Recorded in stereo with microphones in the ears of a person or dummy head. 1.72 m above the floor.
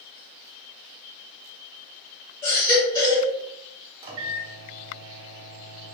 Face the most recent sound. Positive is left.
turn(degrees=-30)  # may be behind; listen again after turning